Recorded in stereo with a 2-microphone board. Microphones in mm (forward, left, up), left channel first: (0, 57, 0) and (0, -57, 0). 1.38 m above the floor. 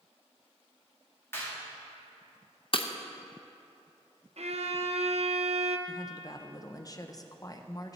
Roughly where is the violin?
Right.